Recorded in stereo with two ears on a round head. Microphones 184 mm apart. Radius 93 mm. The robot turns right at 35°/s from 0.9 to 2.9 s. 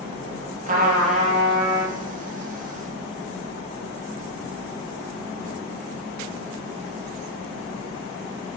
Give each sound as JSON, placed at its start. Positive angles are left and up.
{"t": 0.7, "sound": "a trumpet", "azimuth_deg": -50, "distance_m": 0.5}